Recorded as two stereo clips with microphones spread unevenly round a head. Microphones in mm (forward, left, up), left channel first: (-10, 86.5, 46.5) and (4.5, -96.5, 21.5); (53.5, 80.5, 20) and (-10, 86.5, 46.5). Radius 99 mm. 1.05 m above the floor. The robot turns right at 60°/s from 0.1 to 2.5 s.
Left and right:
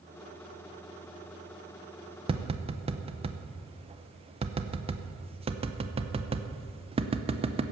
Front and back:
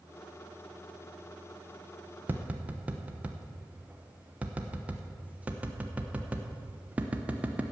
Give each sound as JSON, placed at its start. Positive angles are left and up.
{"t": 2.3, "sound": "tapping", "azimuth_deg": -105, "distance_m": 0.9}